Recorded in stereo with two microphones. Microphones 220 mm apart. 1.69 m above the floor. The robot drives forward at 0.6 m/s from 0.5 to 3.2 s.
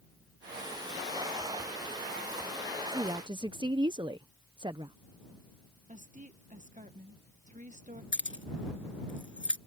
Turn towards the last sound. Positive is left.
turn(degrees=60)  # may be behind; listen again after turning